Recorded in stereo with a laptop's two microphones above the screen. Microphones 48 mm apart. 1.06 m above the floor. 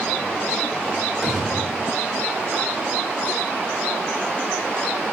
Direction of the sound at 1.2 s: 15° right (ahead or behind).